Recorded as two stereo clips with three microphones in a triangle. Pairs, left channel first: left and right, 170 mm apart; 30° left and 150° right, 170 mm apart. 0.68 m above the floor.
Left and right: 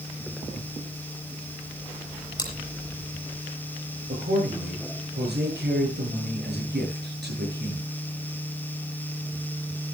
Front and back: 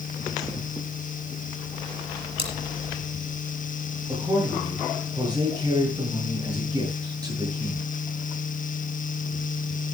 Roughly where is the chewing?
Behind left.